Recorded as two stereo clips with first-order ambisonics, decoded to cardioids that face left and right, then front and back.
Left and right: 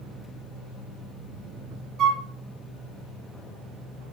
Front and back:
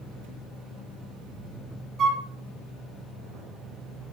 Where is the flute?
130° right, 0.6 m.